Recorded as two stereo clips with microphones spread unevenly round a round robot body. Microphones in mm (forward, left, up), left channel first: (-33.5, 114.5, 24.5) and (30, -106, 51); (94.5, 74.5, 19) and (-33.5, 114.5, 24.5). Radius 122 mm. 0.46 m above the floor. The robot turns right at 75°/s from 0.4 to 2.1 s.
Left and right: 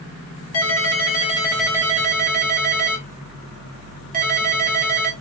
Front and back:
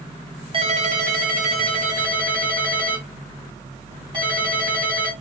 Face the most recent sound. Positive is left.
turn(degrees=-130)